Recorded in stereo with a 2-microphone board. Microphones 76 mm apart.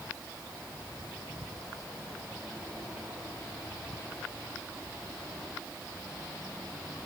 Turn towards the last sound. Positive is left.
No sound to turn to.